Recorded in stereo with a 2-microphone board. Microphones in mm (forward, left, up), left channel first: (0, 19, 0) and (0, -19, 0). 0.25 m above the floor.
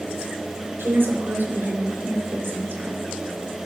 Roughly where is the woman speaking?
Right.